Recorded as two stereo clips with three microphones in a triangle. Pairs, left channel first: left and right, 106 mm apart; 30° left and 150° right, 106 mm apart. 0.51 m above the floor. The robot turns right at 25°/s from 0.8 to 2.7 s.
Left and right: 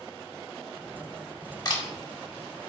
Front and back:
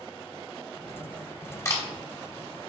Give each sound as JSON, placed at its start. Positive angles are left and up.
{"t": 1.6, "sound": "a camera shutter", "azimuth_deg": 75, "distance_m": 1.1}